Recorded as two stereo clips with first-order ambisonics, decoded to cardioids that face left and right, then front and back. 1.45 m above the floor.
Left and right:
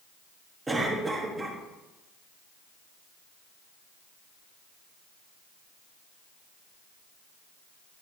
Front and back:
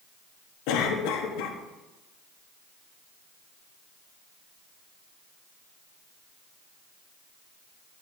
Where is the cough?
10° right, 1.3 m.